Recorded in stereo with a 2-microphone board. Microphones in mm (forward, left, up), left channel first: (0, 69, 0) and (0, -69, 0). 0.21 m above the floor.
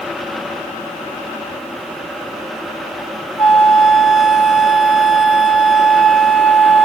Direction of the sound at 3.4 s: 5° right (ahead or behind).